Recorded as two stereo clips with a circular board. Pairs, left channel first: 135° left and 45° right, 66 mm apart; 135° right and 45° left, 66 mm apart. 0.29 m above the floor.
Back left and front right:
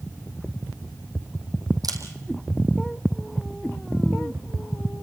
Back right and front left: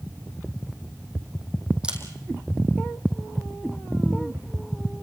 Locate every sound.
1.8 s a camera shutter: 30° right, 4 m